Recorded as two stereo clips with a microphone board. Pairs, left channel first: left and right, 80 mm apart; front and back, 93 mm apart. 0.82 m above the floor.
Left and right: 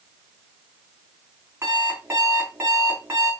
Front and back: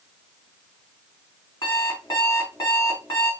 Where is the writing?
No writing in this recording.